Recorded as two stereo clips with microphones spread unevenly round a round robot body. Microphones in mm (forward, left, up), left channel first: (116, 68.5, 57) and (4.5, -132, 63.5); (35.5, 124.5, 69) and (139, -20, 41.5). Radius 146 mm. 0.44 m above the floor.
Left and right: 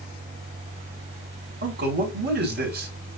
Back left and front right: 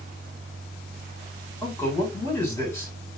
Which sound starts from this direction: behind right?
A man speaking, at 1.6 s.